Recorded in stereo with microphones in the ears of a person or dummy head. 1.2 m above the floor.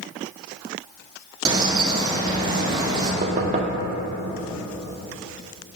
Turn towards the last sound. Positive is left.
turn(degrees=-30)  # may be behind; listen again after turning